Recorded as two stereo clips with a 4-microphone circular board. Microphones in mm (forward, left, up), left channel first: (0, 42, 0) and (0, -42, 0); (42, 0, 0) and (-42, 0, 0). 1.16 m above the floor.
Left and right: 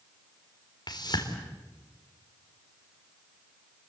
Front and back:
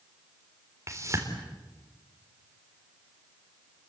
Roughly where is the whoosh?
Behind left.